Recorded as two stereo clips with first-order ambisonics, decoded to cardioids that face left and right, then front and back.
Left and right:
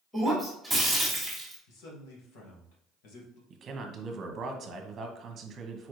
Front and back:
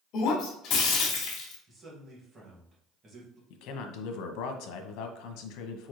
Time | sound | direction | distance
0.1 | breaking glass | straight ahead | 1.5 m
1.7 | a man speaking | 110° left | 1.8 m
3.5 | a man speaking | 25° right | 0.9 m